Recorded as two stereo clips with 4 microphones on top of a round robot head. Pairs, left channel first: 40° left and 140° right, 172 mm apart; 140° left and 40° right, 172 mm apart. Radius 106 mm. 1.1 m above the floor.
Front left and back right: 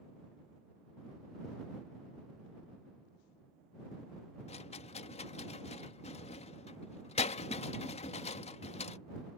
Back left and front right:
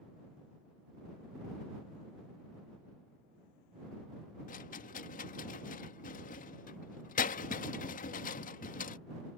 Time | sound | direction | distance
4.5 | a rattle | 95° left | ?